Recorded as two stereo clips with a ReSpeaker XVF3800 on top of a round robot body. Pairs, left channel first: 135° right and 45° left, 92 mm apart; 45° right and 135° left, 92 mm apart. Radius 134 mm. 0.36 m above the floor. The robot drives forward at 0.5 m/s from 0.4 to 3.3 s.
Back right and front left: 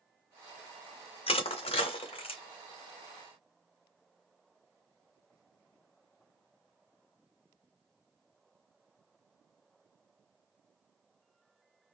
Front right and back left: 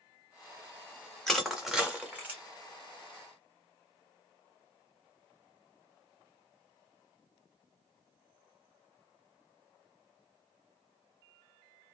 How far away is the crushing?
About 0.9 m.